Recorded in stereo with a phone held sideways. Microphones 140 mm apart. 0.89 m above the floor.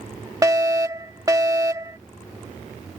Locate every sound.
0.4 s a fire alarm: 25° right (ahead or behind)